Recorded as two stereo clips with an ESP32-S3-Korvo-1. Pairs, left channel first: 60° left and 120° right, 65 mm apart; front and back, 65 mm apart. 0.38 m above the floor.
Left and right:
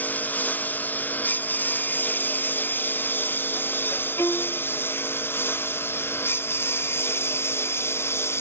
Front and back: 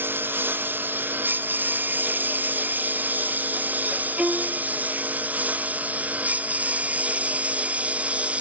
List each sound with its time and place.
0.0 s a lawn mower: 125° left; by 8.4 s 110° left
4.2 s a violin: 105° left